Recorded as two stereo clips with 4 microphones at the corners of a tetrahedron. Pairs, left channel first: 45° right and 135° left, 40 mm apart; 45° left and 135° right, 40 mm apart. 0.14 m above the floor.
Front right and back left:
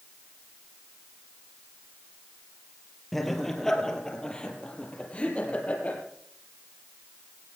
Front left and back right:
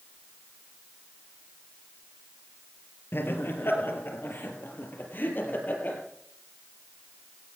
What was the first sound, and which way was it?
Laughter, 40° left.